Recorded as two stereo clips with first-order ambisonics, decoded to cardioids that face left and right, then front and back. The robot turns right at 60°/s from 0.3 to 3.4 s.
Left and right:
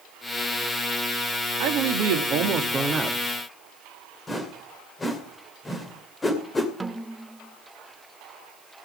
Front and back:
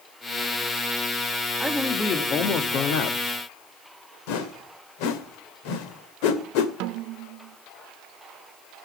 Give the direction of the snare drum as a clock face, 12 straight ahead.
6 o'clock.